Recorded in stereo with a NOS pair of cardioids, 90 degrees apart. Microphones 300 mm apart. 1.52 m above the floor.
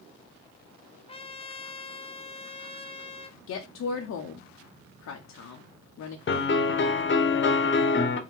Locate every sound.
1.1 s a trumpet: 20° left, 0.5 m
3.5 s a woman speaking: 60° left, 0.8 m
6.3 s a piano: 40° left, 0.9 m